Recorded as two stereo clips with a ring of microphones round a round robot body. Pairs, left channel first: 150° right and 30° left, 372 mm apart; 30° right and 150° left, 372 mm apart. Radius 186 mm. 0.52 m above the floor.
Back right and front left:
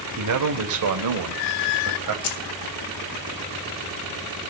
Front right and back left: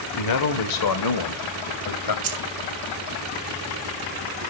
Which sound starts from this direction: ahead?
A man speaking, at 0.2 s.